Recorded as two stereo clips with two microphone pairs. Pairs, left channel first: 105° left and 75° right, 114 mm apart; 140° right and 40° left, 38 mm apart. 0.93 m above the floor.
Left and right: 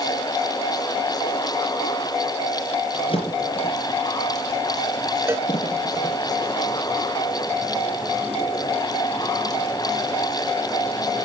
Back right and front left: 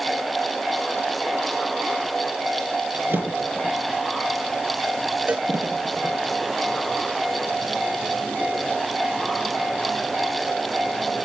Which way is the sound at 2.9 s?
65° left.